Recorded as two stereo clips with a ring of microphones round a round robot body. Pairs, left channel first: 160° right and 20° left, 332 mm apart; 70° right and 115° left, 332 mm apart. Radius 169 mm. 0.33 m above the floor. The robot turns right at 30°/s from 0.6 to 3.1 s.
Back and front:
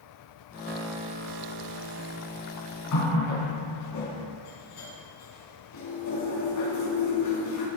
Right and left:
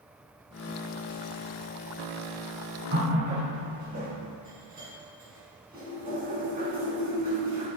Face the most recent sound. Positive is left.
turn(degrees=175)